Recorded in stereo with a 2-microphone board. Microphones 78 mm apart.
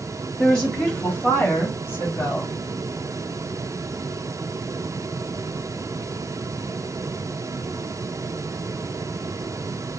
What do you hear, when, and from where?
0.4 s a woman speaking: 10° left (ahead or behind), 1.8 m; by 2.6 s 40° left (ahead or behind), 1.8 m